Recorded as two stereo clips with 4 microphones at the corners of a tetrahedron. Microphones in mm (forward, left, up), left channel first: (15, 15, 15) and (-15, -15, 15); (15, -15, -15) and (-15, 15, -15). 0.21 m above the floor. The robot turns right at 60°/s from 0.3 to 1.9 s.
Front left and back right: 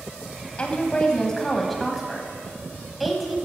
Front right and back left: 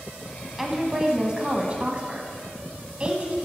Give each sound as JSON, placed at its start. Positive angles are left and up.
{"t": 0.6, "sound": "a woman speaking", "azimuth_deg": 55, "distance_m": 1.3}